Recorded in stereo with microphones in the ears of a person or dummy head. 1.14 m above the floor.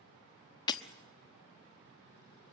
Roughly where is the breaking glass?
Left.